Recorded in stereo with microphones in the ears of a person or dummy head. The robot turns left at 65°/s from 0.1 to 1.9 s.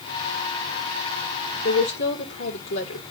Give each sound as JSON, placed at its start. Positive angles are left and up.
{"t": 1.6, "sound": "a woman speaking", "side_deg": 50, "distance_m": 2.5}